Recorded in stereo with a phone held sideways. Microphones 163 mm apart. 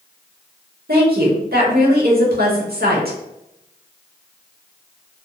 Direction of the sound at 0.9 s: 70° right (ahead or behind).